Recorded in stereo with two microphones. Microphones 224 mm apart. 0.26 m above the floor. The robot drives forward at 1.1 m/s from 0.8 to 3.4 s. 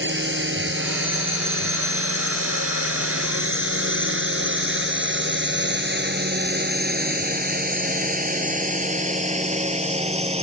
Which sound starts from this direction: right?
A drone, at 0.0 s.